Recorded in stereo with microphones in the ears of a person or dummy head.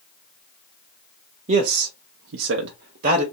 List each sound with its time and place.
1.5 s a man speaking: 40° right (ahead or behind), 0.6 m; by 3.2 s 35° right (ahead or behind), 0.9 m